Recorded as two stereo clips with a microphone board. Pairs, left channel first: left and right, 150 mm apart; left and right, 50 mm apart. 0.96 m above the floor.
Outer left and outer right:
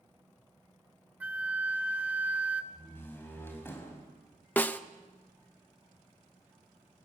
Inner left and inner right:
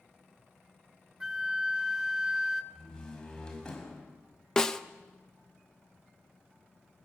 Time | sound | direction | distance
1.2 | a flute | 10° right (ahead or behind) | 0.8 m
2.7 | a door slam | 15° left (ahead or behind) | 5 m
4.6 | a snare drum | 10° left (ahead or behind) | 0.8 m